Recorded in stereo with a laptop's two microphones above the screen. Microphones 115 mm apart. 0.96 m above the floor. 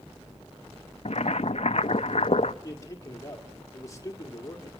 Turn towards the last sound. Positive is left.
turn(degrees=30)  # may be behind; listen again after turning